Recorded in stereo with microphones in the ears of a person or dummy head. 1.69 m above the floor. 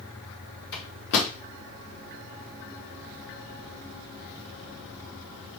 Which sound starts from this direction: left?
A microwave, at 0.7 s.